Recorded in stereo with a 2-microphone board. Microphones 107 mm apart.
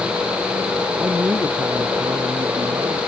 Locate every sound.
1.0 s a man speaking: 15° right (ahead or behind); by 3.0 s 30° right (ahead or behind)